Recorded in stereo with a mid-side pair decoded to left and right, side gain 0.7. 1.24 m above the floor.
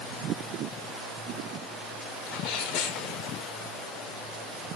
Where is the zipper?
I don't hear a zipper.